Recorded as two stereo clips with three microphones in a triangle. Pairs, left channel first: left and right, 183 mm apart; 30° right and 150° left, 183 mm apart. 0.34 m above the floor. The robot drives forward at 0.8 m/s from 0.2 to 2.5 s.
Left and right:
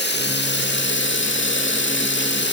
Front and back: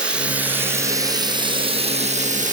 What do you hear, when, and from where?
0.0 s running water: 65° left, 3 m; by 2.5 s 105° left, 2.5 m